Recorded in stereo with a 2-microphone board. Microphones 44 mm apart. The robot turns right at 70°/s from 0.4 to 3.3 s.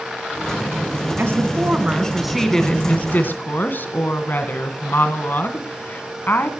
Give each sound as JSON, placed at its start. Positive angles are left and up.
{"t": 1.2, "sound": "a woman speaking", "azimuth_deg": -85, "distance_m": 2.0}